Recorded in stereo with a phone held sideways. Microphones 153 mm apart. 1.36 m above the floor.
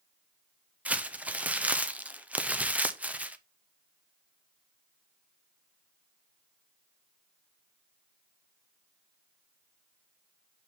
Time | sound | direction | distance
0.8 | crumpling | 10° right (ahead or behind) | 0.5 m